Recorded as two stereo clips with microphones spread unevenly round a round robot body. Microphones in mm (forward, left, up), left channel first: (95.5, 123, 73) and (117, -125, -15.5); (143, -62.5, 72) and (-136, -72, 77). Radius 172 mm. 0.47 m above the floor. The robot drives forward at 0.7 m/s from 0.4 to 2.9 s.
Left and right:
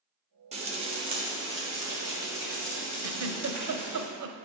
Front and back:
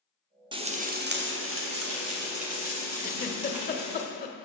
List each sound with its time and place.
0.5 s frying: 110° right, 1.0 m; by 4.0 s 160° right, 2 m
3.0 s a giggle: 60° right, 0.7 m